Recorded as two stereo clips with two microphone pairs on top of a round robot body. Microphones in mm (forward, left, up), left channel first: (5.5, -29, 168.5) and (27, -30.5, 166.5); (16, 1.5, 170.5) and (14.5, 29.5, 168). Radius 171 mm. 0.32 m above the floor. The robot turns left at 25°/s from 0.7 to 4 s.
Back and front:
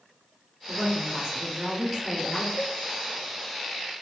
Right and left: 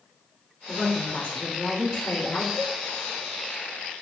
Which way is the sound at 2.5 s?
15° right.